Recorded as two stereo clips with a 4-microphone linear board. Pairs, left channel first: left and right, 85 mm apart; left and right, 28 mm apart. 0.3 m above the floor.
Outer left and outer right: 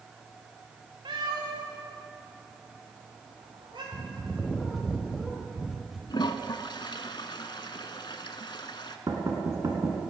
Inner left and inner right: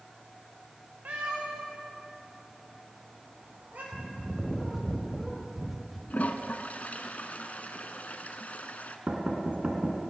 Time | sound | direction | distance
1.1 | a cat meowing | 65° right (ahead or behind) | 3 m
3.9 | a bird | 5° right (ahead or behind) | 1.4 m
6.1 | a toilet flushing | 65° left (ahead or behind) | 0.7 m
9.1 | knocking | 45° right (ahead or behind) | 2 m